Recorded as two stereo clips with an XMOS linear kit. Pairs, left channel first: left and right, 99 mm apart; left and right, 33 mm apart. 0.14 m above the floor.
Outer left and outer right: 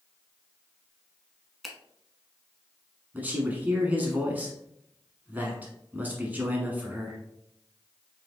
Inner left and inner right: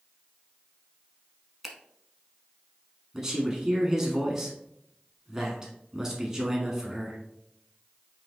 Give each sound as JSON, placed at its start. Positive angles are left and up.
{"t": 1.6, "sound": "a finger snap", "side_deg": 0, "distance_m": 0.8}
{"t": 3.1, "sound": "a man speaking", "side_deg": -15, "distance_m": 1.0}